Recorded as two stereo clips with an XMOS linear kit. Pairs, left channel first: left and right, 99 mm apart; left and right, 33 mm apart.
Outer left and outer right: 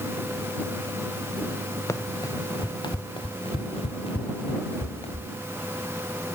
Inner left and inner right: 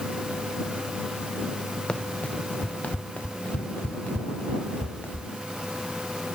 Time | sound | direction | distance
1.9 | running footsteps | 30° left (ahead or behind) | ?